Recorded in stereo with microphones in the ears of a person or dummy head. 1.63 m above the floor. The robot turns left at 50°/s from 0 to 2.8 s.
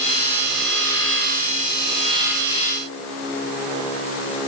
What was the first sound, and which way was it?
Only background noise.